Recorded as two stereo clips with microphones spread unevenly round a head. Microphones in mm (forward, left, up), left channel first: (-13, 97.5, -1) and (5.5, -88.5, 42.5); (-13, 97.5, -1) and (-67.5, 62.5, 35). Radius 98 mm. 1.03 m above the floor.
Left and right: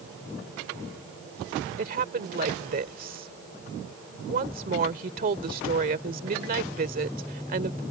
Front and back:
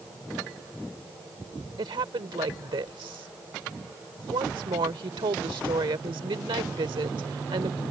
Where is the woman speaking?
130° right.